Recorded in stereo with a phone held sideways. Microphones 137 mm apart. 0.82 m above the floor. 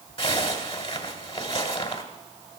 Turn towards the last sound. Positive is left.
turn(degrees=45)  # may be behind; listen again after turning